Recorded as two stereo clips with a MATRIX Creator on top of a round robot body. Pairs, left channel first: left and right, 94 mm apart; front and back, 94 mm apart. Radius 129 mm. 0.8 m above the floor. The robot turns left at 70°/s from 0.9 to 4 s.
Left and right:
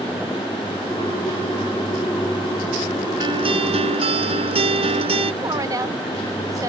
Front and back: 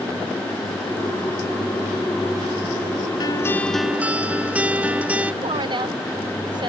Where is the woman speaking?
145° right.